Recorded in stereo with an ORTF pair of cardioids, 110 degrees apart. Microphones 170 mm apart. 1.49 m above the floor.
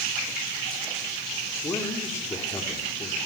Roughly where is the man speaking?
Ahead.